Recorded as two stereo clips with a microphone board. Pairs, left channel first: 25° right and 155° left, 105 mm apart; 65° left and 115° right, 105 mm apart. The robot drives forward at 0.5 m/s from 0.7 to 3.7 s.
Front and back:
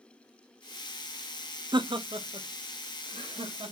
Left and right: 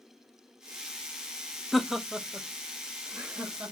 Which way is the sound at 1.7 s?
155° left.